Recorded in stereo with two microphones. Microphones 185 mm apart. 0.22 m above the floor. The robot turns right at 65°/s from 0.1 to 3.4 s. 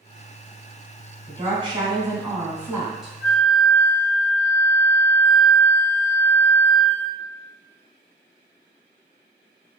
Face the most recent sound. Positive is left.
turn(degrees=45)  # may be behind; listen again after turning